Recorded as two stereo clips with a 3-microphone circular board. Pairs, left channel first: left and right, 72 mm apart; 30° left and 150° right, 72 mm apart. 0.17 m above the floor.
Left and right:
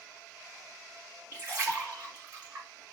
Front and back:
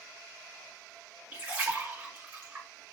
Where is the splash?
115° right, 1.6 m.